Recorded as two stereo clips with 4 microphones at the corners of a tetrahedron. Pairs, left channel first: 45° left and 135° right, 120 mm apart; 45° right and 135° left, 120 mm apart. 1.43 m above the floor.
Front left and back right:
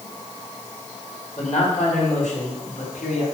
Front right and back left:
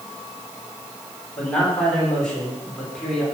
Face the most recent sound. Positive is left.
turn(degrees=40)